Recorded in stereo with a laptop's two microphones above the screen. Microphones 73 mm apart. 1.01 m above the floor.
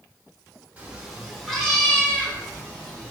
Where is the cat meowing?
20° right (ahead or behind), 0.8 m; by 3.1 s 20° left (ahead or behind), 2.5 m.